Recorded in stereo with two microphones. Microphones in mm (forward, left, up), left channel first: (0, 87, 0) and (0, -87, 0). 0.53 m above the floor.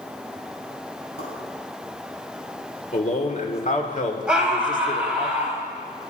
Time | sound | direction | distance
1.2 | a pop | 80° left | 4 m
2.9 | a man speaking | 45° left (ahead or behind) | 1.6 m
4.3 | a scream | 5° right (ahead or behind) | 2.5 m